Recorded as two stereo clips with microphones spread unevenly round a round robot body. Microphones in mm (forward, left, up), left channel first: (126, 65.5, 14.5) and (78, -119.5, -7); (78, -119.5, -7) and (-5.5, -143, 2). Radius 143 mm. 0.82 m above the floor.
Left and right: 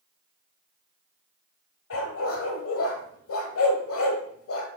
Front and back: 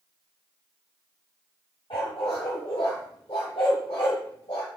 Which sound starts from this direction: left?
A dog barking, at 1.9 s.